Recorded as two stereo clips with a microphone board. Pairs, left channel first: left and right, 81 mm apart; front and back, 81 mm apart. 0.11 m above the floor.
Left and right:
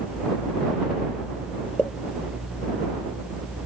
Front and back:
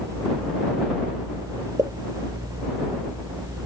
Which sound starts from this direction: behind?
A pop, at 1.8 s.